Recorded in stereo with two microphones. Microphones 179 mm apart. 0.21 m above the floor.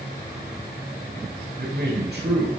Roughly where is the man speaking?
Right.